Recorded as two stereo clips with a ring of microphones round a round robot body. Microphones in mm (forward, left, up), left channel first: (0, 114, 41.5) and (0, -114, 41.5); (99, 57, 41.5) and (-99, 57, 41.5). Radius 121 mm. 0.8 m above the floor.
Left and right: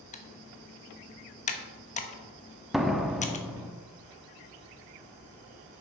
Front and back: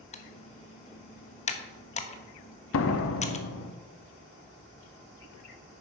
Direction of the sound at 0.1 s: 45° left.